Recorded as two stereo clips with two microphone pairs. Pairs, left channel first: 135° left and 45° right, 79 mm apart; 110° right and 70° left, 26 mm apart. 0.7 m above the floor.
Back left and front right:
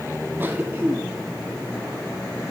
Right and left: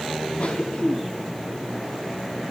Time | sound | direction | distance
0.4 | a cough | 100° right | 1.2 m